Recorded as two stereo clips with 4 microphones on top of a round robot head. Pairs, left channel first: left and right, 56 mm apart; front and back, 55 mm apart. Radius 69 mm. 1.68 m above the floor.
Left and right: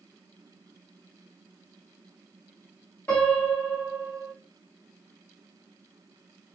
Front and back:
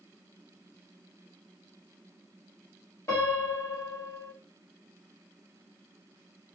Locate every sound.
3.1 s a piano: 35° left, 1.8 m